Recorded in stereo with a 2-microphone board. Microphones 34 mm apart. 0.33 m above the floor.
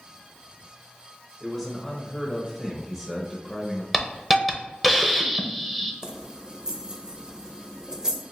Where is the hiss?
5° right (ahead or behind), 0.7 m.